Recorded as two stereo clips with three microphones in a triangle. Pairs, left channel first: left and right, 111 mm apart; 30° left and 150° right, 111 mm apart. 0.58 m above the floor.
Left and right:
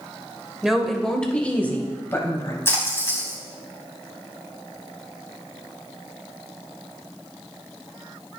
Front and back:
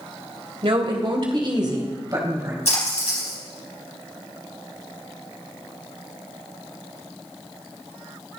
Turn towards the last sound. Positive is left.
turn(degrees=25)